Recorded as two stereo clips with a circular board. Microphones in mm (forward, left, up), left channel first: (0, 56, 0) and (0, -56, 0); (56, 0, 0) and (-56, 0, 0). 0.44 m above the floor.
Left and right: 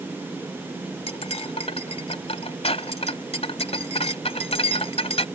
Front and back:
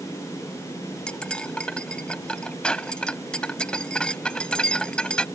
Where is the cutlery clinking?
80° left.